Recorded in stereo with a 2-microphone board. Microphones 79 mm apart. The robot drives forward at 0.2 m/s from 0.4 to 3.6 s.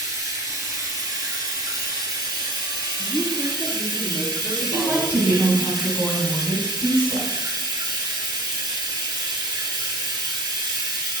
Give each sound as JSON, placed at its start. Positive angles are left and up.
{"t": 0.0, "sound": "running water", "side_deg": -45, "distance_m": 1.0}
{"t": 3.0, "sound": "a woman speaking", "side_deg": 20, "distance_m": 2.0}
{"t": 4.6, "sound": "a woman speaking", "side_deg": -15, "distance_m": 1.2}